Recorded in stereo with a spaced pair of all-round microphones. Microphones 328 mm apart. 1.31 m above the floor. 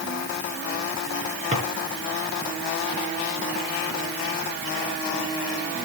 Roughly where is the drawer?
Right.